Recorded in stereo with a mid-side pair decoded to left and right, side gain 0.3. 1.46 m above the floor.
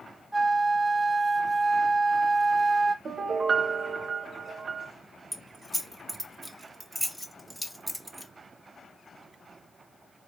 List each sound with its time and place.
0.3 s a flute: 15° right, 1.2 m
3.0 s a piano: 65° right, 1.0 m
5.3 s keys jangling: straight ahead, 1.1 m